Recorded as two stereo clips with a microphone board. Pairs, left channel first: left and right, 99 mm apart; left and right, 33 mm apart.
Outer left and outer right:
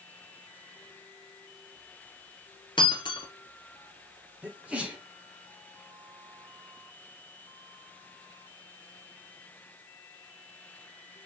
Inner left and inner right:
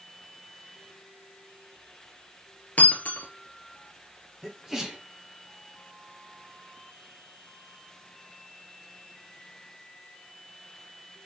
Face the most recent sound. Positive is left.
turn(degrees=-10)  # may be behind; listen again after turning